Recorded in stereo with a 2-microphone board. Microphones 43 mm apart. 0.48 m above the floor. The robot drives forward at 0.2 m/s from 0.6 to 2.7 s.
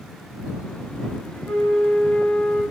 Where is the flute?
35° left (ahead or behind), 0.7 m; by 2.6 s 25° left (ahead or behind), 0.9 m.